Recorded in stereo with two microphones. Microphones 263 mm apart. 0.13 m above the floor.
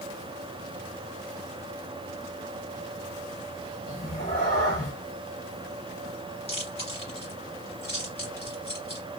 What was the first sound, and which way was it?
A cat meowing, 25° left (ahead or behind).